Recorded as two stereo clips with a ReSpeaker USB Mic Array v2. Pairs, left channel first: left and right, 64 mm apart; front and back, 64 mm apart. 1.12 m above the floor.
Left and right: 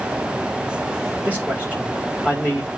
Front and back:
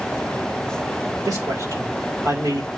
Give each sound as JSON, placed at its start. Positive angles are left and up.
{"t": 1.2, "sound": "a man speaking", "azimuth_deg": -155, "distance_m": 4.5}